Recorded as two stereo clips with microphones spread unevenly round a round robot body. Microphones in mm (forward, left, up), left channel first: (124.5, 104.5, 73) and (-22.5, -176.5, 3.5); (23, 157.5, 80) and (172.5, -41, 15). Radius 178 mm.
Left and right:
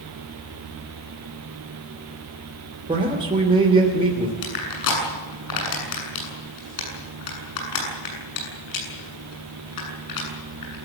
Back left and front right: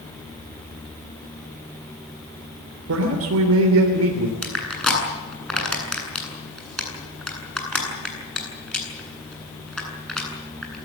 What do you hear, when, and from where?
2.9 s a man speaking: 50° right, 3 m
4.4 s crushing: 40° left, 8.5 m